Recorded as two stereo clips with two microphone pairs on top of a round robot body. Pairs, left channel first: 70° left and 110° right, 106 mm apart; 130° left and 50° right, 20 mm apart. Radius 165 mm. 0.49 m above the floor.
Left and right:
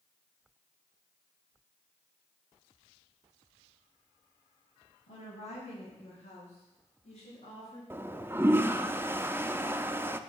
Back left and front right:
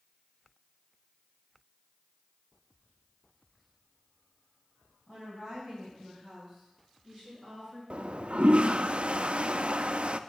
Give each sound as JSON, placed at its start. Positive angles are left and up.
{"t": 5.1, "sound": "a woman speaking", "azimuth_deg": 80, "distance_m": 5.5}
{"t": 7.9, "sound": "a toilet flushing", "azimuth_deg": -40, "distance_m": 0.7}